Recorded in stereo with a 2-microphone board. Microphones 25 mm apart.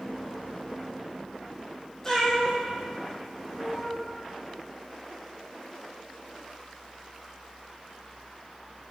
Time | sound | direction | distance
2.0 | a cat meowing | 20° left (ahead or behind) | 1.7 m